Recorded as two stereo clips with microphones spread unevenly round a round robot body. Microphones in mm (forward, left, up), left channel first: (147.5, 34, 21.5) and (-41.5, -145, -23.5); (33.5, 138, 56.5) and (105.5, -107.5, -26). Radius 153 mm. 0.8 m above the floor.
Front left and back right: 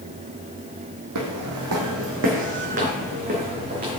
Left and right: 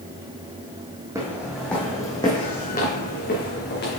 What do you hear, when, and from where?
1.1 s footsteps: 165° right, 1.4 m; by 4.0 s 155° left, 2.5 m